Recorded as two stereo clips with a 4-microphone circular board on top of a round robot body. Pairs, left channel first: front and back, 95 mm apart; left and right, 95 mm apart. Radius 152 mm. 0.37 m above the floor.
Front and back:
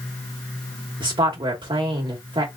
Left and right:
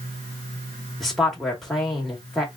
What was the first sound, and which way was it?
A woman speaking, 175° left.